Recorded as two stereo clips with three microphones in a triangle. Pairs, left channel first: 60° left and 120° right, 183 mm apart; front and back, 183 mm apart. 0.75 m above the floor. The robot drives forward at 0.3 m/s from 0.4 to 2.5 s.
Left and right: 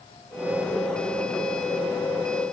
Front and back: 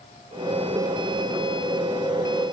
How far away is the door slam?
I don't hear a door slam.